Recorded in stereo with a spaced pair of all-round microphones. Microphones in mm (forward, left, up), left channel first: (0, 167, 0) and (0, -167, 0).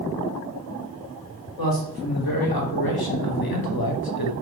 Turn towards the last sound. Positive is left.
turn(degrees=80)